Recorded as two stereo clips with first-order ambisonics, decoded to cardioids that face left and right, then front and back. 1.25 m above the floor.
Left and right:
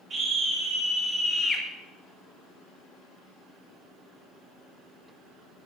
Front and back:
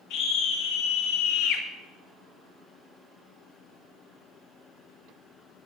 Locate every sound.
0.1 s a scream: 25° right, 2 m; by 1.6 s 20° left, 1.6 m